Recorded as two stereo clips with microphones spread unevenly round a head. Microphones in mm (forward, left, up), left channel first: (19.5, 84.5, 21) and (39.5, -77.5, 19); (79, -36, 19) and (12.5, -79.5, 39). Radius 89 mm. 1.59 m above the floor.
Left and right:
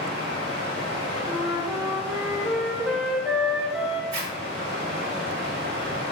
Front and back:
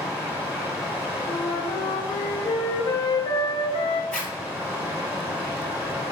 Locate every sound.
0.0 s running water: 100° right, 1.6 m
1.3 s a flute: 5° left, 0.5 m
4.1 s a zipper: 55° right, 1.9 m